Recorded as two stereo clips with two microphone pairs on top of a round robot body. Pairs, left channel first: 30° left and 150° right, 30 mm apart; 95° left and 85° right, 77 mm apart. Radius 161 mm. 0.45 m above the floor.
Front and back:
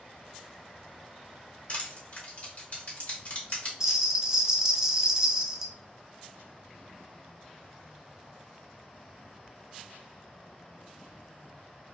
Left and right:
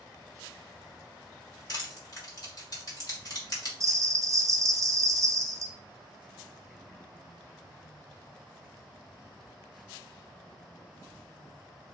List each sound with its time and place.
1.7 s crushing: 60° left, 1.9 m
3.8 s a bell: 90° right, 0.6 m